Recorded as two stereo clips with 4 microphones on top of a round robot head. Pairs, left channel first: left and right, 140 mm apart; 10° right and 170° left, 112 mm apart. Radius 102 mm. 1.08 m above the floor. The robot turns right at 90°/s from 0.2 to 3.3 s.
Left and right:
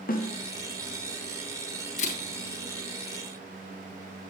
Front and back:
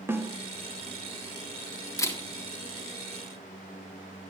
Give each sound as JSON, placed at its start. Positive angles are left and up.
{"t": 0.1, "sound": "a snare drum", "azimuth_deg": 100, "distance_m": 1.7}
{"t": 2.0, "sound": "a camera shutter", "azimuth_deg": 45, "distance_m": 1.9}